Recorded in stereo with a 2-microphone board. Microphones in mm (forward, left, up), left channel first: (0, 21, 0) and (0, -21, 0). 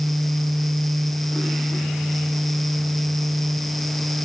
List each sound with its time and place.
Only background noise.